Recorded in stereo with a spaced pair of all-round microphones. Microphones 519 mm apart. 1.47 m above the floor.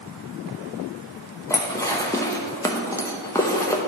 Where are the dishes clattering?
5° left (ahead or behind), 0.8 m.